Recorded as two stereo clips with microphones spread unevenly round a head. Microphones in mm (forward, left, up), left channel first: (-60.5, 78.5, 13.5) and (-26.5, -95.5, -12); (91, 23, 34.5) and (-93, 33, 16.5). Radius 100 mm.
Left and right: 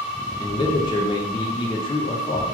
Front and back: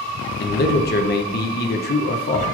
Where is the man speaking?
30° left, 0.5 m.